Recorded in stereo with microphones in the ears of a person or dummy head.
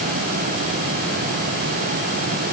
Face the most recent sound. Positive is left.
No sound to turn to.